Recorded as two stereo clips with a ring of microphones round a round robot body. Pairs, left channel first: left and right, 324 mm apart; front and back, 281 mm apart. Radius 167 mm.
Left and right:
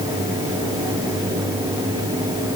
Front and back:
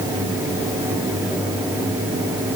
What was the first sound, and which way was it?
Only background noise.